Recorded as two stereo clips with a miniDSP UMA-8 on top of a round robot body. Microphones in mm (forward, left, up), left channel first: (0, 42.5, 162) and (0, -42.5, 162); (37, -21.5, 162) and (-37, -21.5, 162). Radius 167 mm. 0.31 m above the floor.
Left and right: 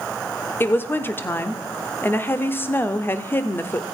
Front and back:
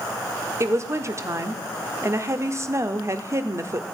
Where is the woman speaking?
145° left, 1.4 m.